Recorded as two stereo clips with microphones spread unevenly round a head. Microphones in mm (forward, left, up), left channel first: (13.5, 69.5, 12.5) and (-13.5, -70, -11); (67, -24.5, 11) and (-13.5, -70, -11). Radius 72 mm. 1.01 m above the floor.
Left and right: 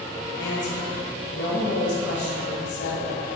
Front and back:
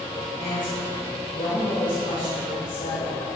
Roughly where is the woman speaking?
Left.